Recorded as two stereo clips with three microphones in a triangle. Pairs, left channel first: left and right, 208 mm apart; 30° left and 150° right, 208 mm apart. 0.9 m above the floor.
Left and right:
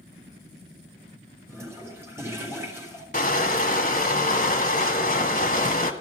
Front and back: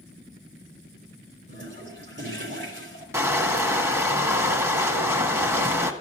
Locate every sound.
1.5 s a toilet flushing: 170° right, 3.5 m
3.1 s crushing: 135° left, 1.2 m